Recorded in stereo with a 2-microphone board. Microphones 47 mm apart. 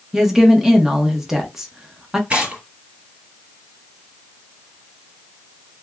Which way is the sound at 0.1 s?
10° right (ahead or behind).